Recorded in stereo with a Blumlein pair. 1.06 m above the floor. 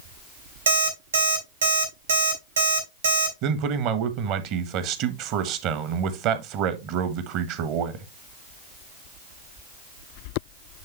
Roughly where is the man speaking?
Ahead right.